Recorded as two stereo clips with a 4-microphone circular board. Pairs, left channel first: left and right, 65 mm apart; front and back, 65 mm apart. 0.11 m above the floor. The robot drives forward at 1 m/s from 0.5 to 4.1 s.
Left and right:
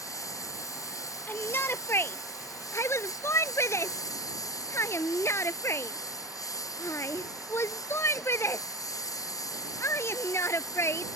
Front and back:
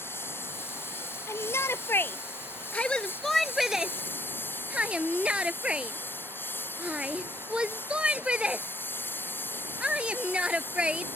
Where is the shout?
35° left; by 11.1 s 115° left.